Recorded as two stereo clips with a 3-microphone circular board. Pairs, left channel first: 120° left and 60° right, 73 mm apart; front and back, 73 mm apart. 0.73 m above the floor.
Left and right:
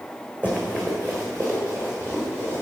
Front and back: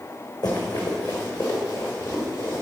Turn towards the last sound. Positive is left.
turn(degrees=0)